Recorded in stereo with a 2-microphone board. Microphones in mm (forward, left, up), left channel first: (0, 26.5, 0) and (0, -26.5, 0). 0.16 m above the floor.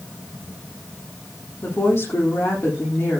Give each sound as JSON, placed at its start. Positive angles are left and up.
{"t": 1.6, "sound": "a woman speaking", "side_deg": 60, "distance_m": 8.0}